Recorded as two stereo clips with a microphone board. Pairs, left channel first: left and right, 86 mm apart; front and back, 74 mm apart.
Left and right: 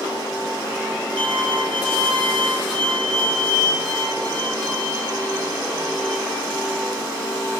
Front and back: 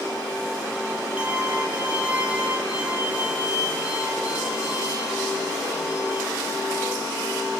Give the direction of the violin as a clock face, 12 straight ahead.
4 o'clock.